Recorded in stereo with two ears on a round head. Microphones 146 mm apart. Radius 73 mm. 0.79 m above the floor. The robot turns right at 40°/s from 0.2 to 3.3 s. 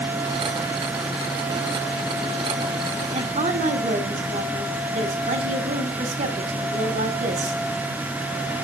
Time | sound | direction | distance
3.1 | a woman speaking | 40° right (ahead or behind) | 2 m